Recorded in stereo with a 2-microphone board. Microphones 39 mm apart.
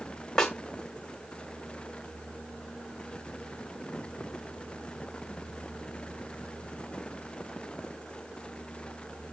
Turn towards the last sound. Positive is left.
turn(degrees=15)  # may be behind; listen again after turning